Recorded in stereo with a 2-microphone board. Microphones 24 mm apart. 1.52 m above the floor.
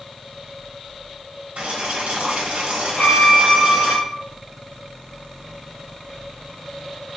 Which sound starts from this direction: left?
A violin, at 3.0 s.